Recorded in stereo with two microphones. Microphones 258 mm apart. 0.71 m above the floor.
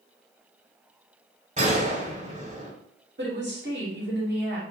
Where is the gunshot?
30° right (ahead or behind), 1.3 m.